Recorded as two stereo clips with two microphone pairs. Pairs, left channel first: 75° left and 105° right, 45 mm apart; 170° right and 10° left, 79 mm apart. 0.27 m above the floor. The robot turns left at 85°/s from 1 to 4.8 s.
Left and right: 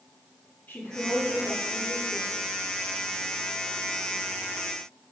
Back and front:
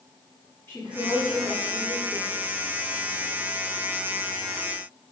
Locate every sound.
0.7 s a woman speaking: 130° left, 4 m; by 2.3 s 20° left, 4 m